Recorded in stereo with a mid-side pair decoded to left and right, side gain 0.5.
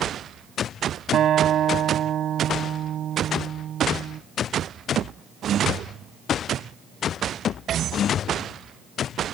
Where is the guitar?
55° right.